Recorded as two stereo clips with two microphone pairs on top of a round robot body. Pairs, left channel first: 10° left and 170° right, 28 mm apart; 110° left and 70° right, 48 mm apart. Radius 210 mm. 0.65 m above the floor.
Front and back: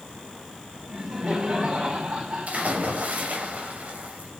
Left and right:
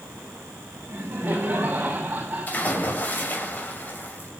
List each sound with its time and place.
0.9 s laughter: 120° right, 5.5 m; by 2.9 s 135° right, 6 m
2.5 s a splash: 160° left, 6.5 m